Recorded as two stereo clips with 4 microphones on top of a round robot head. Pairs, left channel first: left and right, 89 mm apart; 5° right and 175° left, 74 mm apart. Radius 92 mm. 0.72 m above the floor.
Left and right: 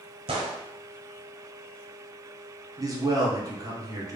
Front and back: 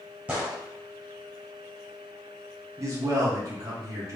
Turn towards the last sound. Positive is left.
turn(degrees=-135)